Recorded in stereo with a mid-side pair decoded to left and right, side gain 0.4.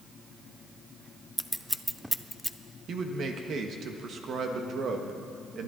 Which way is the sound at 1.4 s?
10° right.